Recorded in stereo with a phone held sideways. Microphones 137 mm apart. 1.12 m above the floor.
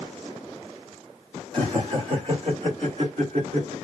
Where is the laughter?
35° right (ahead or behind), 1.8 m; by 3.7 s 55° right (ahead or behind), 3 m.